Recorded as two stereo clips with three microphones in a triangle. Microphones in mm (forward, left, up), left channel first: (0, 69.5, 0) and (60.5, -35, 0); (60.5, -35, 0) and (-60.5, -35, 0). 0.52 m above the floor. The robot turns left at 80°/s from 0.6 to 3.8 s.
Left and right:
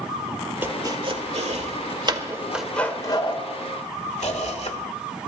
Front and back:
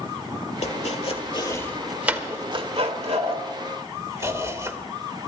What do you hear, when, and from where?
0.6 s chopping: 10° left, 1.5 m; by 4.8 s 120° left, 1.5 m